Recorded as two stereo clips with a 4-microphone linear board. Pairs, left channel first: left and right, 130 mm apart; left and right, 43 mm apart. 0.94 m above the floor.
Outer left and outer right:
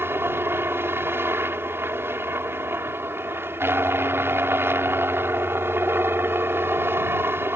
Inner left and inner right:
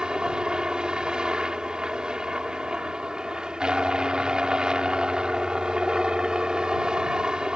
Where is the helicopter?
15° right (ahead or behind).